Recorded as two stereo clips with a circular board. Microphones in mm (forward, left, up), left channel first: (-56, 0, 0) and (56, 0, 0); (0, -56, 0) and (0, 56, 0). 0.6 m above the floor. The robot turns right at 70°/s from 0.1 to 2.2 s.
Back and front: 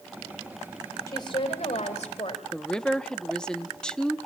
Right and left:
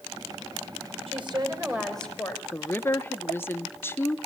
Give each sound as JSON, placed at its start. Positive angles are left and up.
{"t": 1.1, "sound": "a woman speaking", "azimuth_deg": 120, "distance_m": 2.5}
{"t": 2.5, "sound": "a woman speaking", "azimuth_deg": -110, "distance_m": 0.6}